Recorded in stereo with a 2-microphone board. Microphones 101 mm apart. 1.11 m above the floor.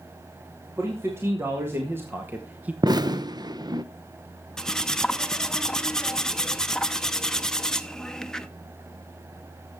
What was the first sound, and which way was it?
A man speaking, 25° right (ahead or behind).